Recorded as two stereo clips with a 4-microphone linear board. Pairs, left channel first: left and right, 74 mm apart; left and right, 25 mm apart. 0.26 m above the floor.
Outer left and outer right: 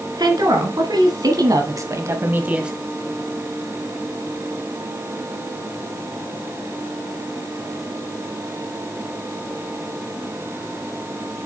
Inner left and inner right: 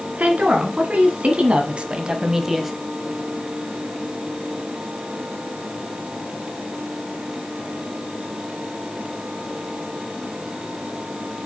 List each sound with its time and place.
0.2 s a woman speaking: 70° right (ahead or behind), 3 m; by 2.7 s 10° right (ahead or behind), 1.0 m